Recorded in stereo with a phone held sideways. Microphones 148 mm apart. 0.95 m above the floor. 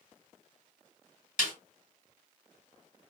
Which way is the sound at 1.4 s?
55° left (ahead or behind).